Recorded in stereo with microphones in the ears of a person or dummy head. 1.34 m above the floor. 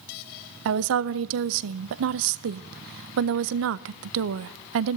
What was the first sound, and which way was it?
A woman speaking, 65° right (ahead or behind).